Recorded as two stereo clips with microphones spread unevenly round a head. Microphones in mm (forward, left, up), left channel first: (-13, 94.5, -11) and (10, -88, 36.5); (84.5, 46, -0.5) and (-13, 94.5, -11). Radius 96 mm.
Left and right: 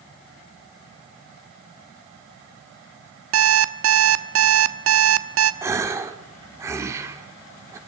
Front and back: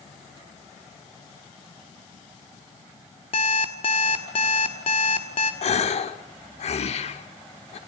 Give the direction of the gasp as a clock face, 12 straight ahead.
12 o'clock.